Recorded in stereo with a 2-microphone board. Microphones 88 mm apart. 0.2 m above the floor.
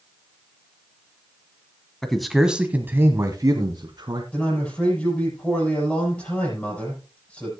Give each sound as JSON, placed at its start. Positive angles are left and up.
{"t": 2.0, "sound": "a man speaking", "side_deg": 5, "distance_m": 1.3}
{"t": 4.3, "sound": "a man speaking", "side_deg": 10, "distance_m": 7.5}